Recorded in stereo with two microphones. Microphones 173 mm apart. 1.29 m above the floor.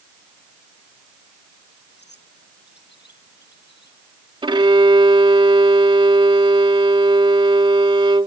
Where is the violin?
30° right (ahead or behind).